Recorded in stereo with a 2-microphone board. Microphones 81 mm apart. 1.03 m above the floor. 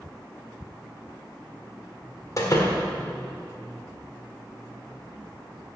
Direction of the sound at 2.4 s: 40° left (ahead or behind).